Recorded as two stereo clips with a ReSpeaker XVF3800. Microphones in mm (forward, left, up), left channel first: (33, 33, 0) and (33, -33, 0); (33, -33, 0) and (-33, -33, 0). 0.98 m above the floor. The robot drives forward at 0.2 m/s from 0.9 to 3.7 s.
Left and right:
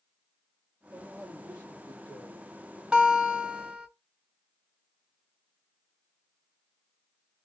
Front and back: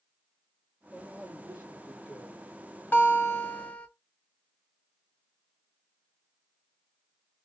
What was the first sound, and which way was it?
A man speaking, 110° right.